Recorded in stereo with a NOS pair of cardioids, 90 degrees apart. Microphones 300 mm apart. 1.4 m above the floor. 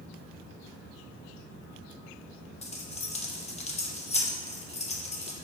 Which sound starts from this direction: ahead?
Keys jangling, at 2.6 s.